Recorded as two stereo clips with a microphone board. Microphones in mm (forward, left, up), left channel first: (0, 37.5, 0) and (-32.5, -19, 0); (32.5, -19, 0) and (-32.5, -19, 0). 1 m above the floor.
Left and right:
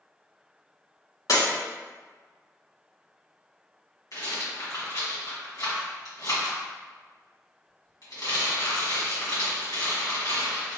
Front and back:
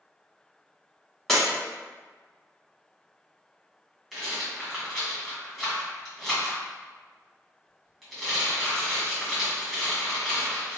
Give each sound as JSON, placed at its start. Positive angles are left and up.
{"t": 1.3, "sound": "breaking glass", "azimuth_deg": 80, "distance_m": 2.0}
{"t": 4.1, "sound": "a rattle", "azimuth_deg": 85, "distance_m": 1.6}